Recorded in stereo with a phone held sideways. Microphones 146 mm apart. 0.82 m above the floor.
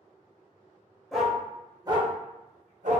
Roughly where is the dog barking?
Centre.